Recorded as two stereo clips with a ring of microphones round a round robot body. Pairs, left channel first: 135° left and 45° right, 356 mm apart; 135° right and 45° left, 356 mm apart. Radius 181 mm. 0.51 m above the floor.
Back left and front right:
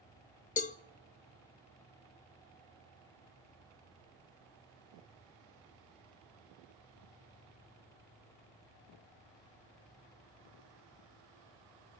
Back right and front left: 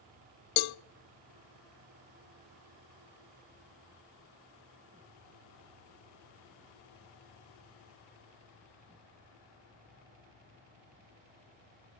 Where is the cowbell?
155° right, 0.5 m.